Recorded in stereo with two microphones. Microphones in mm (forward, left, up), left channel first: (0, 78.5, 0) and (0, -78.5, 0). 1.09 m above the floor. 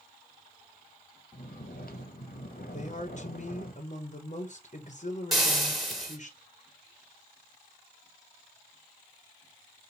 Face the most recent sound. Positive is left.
turn(degrees=0)  # may be behind; listen again after turning